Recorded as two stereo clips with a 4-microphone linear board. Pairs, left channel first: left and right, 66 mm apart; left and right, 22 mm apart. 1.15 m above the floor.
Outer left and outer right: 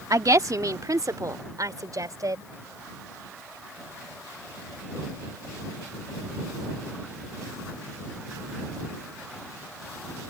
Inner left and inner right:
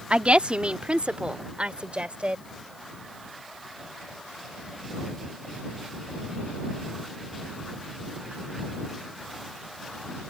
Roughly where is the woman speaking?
Right.